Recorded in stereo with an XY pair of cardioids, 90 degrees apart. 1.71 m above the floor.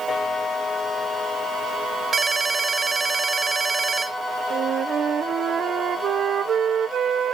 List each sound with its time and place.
2.1 s a ringtone: 45° right, 2.5 m
4.5 s a flute: 65° right, 0.8 m